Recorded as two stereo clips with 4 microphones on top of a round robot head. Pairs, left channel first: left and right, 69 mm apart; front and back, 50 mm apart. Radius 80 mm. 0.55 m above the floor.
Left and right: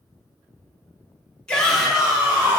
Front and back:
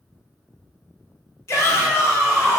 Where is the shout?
15° left, 1.5 m; by 2.6 s 25° right, 1.7 m.